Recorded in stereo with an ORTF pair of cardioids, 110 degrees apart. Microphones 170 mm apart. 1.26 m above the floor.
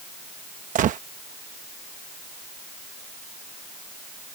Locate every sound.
0.8 s a gunshot: 50° right